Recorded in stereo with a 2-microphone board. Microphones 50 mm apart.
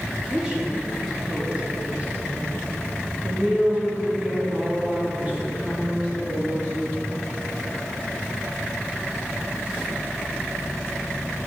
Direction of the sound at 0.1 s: 15° right (ahead or behind).